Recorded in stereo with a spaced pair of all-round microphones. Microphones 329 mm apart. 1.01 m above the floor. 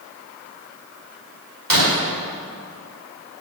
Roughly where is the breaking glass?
Right.